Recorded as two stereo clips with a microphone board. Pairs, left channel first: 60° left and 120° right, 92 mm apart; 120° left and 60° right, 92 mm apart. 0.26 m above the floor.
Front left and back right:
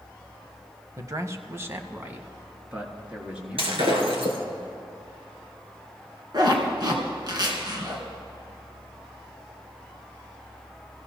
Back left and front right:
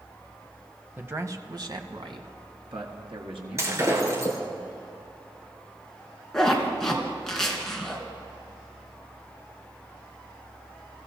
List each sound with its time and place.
1.0 s a man speaking: 115° right, 1.1 m; by 4.6 s 40° right, 4.5 m
3.6 s breaking glass: 115° right, 3 m
6.3 s a zipper: 155° right, 3 m